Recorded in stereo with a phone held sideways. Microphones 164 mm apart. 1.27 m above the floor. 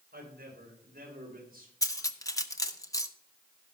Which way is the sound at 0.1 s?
75° right (ahead or behind).